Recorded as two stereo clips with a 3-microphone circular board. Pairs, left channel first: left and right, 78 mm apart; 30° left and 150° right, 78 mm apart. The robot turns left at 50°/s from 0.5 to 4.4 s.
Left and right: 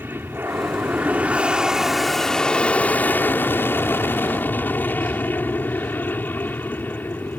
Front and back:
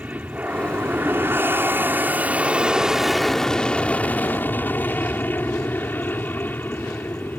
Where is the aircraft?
105° right; by 7.4 s 60° left.